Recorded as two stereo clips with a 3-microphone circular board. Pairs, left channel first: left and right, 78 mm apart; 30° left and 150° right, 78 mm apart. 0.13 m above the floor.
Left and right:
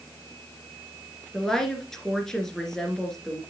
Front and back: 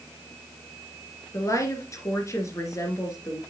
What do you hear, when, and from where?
1.3 s a woman speaking: 10° left, 2 m